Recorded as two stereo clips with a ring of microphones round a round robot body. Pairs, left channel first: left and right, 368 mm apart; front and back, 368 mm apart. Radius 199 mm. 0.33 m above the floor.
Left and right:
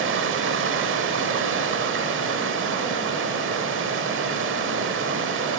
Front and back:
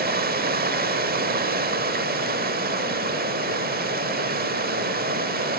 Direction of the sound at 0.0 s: 130° right.